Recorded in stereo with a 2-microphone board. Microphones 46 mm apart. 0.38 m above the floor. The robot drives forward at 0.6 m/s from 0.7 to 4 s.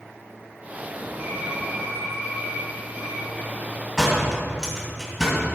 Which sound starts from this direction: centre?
A door slam, at 4.0 s.